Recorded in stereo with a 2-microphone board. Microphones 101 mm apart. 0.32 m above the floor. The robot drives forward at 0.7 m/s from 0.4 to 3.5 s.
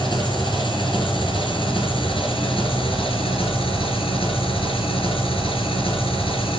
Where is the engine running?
60° left (ahead or behind), 5 m; by 6.6 s 80° left, 4.5 m.